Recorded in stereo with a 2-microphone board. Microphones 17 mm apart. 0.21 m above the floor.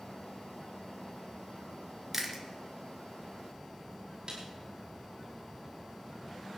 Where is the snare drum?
40° right (ahead or behind), 5.5 m.